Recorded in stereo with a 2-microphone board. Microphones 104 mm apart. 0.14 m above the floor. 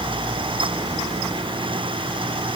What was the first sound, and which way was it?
Only background noise.